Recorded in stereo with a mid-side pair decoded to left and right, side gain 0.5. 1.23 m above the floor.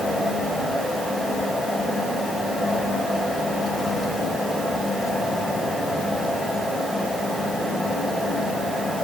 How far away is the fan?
About 5 m.